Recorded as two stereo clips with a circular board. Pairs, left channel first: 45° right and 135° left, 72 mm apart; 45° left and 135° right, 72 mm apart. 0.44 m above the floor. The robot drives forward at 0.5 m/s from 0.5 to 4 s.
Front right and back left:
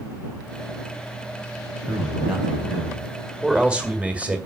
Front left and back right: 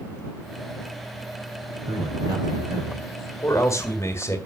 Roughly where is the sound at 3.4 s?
Ahead left.